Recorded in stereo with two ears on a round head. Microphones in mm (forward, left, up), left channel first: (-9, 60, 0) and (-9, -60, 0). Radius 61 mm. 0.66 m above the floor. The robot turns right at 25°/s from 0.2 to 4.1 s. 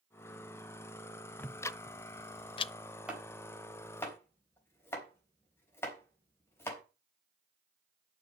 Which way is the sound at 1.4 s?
15° left (ahead or behind).